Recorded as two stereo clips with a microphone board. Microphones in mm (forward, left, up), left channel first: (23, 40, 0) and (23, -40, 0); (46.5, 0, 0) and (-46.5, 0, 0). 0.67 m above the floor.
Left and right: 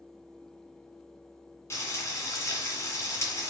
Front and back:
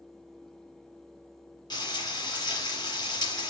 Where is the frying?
35° left, 2 m.